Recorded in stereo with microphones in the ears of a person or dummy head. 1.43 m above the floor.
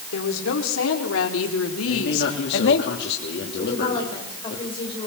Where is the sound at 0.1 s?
70° left (ahead or behind), 5 m.